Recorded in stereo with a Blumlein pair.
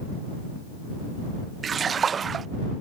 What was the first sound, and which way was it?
A splash, 20° right.